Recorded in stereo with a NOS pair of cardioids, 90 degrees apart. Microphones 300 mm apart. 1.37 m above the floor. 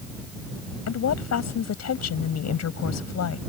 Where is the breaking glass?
No breaking glass in this recording.